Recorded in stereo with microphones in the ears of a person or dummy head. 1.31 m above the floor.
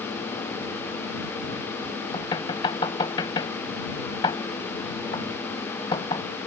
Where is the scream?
No scream in this recording.